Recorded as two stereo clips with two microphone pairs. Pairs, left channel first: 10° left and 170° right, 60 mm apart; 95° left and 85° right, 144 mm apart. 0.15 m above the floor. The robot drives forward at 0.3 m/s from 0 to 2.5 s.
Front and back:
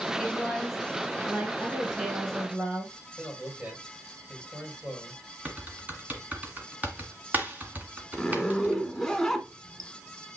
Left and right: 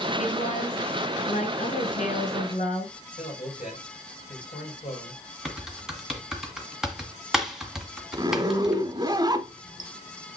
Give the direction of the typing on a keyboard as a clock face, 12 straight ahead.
5 o'clock.